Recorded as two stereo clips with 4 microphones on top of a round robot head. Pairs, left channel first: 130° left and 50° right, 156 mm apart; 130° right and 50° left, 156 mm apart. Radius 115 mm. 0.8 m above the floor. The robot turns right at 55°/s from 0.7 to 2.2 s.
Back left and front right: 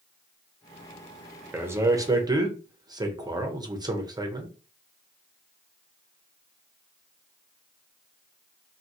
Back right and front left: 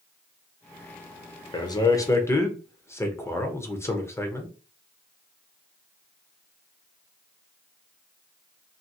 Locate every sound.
1.5 s a man speaking: 115° right, 0.9 m; by 4.5 s 75° right, 0.9 m